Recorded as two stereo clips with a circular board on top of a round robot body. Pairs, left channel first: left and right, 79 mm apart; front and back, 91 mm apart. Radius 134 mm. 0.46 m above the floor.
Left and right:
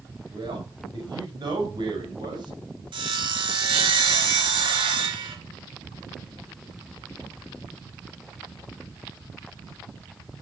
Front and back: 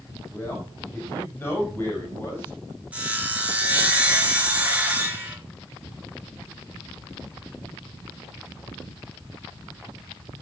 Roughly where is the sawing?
Right.